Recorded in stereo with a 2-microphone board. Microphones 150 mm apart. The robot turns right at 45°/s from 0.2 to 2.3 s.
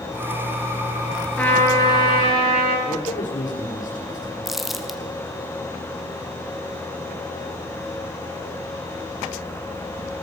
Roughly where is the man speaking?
Left.